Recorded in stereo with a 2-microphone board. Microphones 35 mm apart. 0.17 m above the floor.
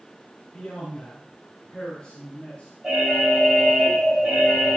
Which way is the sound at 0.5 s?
20° left (ahead or behind).